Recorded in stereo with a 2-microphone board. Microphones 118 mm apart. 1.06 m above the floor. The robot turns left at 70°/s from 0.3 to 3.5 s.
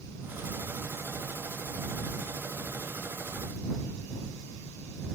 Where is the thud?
No thud in this recording.